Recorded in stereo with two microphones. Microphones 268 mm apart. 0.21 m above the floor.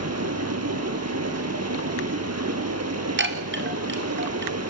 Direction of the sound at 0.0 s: 70° right (ahead or behind).